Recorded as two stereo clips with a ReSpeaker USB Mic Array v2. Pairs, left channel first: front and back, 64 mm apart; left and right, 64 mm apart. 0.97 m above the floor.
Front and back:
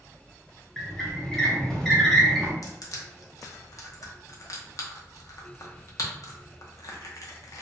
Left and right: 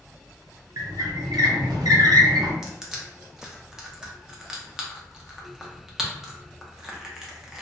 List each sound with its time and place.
0.8 s a squeak: 85° right, 0.6 m
2.6 s crushing: 10° right, 0.6 m